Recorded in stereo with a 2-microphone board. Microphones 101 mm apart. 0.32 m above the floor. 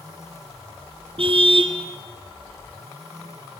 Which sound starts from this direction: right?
A car horn, at 1.2 s.